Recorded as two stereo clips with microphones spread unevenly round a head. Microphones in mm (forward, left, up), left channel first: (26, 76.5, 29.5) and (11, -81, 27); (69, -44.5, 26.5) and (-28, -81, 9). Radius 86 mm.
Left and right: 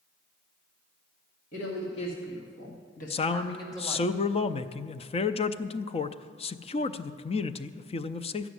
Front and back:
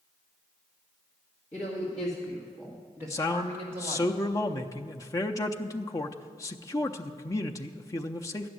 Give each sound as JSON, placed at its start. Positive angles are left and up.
{"t": 1.5, "sound": "a woman speaking", "azimuth_deg": 70, "distance_m": 2.5}
{"t": 3.1, "sound": "a man speaking", "azimuth_deg": 80, "distance_m": 0.5}